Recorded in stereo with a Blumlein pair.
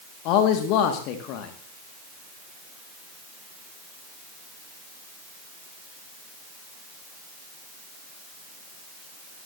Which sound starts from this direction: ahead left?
A man speaking, at 0.2 s.